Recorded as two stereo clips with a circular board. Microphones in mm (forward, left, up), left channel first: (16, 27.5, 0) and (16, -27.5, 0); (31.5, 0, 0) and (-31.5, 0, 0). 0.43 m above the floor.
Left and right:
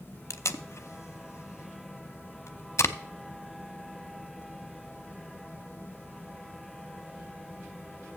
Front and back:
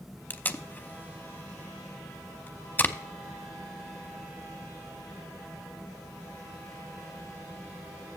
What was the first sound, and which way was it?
Tape being pulled, 55° left.